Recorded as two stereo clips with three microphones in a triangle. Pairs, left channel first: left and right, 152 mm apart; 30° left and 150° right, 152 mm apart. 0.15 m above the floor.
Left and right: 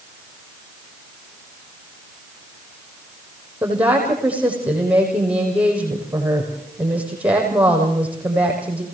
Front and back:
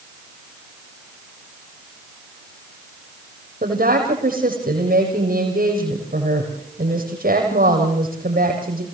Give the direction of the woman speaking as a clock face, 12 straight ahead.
6 o'clock.